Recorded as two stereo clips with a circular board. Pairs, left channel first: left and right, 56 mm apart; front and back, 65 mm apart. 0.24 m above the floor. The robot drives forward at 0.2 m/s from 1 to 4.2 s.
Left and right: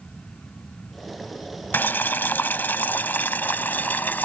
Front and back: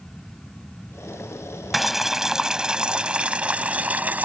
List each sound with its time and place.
1.7 s boiling: 95° left; by 4.3 s 130° left